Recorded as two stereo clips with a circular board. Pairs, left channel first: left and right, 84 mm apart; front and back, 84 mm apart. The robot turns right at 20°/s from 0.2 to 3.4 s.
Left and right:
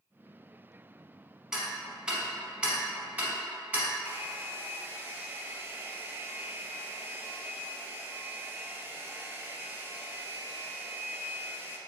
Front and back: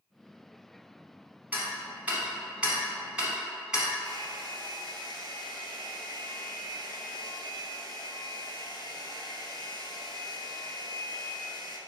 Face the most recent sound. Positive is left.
turn(degrees=-155)